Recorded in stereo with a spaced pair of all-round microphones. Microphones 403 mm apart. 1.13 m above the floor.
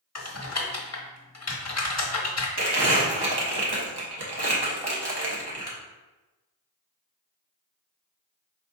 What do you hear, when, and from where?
0.1 s typing on a keyboard: 40° left (ahead or behind), 1.0 m
2.6 s crumpling: 75° right (ahead or behind), 1.0 m